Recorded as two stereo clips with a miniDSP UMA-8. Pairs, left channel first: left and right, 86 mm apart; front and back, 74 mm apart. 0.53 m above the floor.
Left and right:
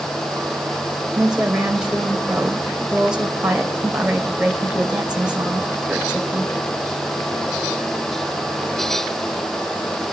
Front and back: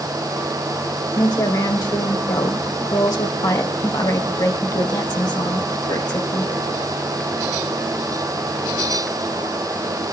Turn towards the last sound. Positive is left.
turn(degrees=-10)